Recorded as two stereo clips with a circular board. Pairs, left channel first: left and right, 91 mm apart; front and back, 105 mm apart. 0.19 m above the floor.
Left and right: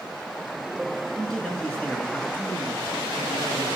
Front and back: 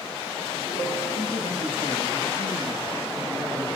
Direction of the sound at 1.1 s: Straight ahead.